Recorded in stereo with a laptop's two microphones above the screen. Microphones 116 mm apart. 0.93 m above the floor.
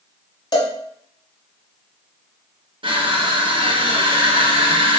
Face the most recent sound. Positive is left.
turn(degrees=-45)  # may be behind; listen again after turning